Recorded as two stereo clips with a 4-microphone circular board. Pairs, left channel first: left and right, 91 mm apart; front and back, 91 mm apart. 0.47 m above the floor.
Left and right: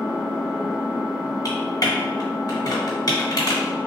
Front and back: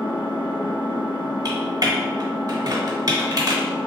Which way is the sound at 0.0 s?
Straight ahead.